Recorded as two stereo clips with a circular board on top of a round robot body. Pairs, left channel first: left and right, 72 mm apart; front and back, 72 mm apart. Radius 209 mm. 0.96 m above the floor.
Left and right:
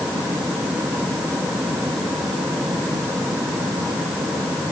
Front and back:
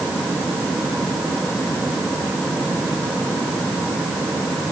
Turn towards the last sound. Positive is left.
No sound to turn to.